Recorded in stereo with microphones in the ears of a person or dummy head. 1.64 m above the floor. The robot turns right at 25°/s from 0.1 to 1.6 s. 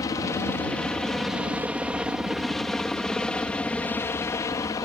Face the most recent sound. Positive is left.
turn(degrees=20)  # may be behind; listen again after turning